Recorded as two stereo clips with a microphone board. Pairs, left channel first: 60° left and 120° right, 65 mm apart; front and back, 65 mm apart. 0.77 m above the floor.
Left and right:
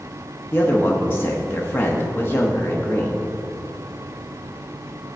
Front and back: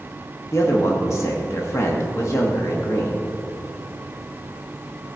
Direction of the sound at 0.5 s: 20° left.